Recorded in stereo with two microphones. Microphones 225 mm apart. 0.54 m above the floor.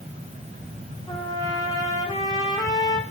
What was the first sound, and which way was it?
A trumpet, 15° left (ahead or behind).